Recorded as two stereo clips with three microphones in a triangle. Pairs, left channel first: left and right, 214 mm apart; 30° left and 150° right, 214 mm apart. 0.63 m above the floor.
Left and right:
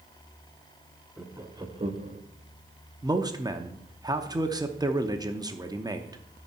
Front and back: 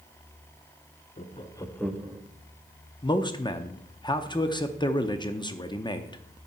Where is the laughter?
10° right, 0.9 m; by 2.2 s 85° right, 0.8 m.